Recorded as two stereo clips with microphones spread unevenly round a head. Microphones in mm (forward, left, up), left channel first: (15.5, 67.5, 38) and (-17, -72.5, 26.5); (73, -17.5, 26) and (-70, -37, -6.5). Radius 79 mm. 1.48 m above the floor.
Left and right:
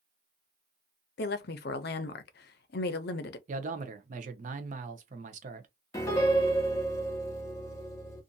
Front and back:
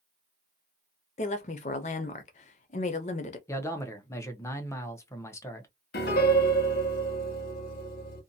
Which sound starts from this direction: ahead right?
A man speaking, at 3.5 s.